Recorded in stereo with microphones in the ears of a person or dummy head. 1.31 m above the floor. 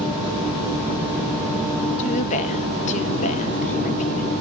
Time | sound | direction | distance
2.0 | a woman speaking | 40° left (ahead or behind) | 1.9 m